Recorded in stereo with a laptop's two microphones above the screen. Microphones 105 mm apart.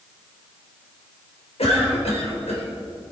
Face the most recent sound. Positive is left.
turn(degrees=80)